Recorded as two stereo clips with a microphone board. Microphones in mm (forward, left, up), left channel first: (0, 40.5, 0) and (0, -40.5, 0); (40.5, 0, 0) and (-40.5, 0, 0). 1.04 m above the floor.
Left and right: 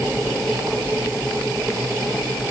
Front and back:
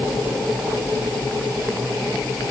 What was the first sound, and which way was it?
Only background noise.